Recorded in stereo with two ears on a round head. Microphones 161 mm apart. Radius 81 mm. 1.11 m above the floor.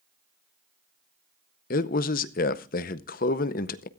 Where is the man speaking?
50° left (ahead or behind), 0.7 m.